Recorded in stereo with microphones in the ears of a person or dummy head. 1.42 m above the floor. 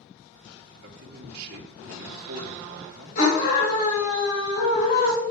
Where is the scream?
55° left (ahead or behind), 3.5 m.